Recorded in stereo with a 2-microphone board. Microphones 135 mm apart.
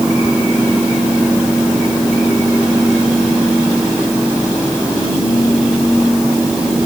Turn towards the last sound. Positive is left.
No sound to turn to.